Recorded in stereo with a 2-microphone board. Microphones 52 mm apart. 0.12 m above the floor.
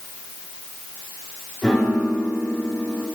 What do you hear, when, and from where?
1.6 s a piano: 10° left (ahead or behind), 5 m